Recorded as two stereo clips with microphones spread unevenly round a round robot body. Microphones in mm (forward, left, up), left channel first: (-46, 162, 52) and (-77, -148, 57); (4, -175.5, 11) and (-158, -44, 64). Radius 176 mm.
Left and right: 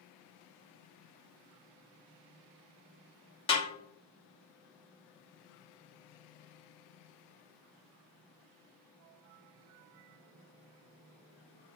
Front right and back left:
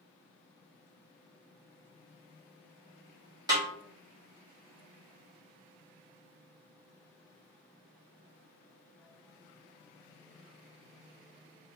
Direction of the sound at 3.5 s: 60° left.